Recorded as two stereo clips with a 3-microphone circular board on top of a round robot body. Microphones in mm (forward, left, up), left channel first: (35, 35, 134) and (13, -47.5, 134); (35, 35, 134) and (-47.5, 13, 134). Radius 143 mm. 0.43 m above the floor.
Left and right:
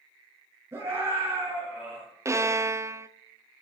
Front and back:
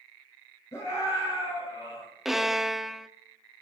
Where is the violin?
80° right, 0.8 m.